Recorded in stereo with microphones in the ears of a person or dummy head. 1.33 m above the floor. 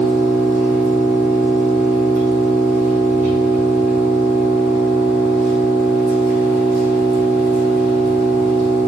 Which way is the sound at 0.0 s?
45° right (ahead or behind).